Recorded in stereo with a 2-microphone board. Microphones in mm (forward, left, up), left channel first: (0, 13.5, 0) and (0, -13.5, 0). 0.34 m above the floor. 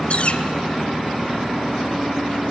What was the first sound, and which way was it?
A bird, 50° left (ahead or behind).